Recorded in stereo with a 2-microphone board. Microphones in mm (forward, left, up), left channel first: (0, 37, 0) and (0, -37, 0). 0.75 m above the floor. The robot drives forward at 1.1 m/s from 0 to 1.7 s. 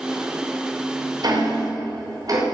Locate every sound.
1.2 s ticking: 60° right (ahead or behind), 3.5 m; by 2.4 s 55° right (ahead or behind), 4 m